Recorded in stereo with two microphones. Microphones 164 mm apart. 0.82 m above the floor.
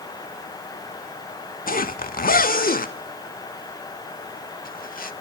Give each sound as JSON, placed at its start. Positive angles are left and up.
{"t": 1.7, "sound": "a zipper", "side_deg": 60, "distance_m": 0.6}